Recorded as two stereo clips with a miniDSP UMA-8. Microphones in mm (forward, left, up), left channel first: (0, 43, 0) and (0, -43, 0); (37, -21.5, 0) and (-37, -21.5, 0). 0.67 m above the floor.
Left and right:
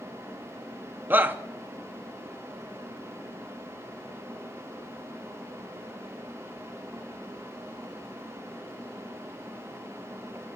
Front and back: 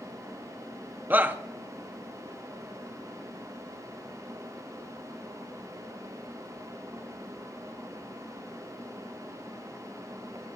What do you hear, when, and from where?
1.1 s a shout: 140° right, 0.6 m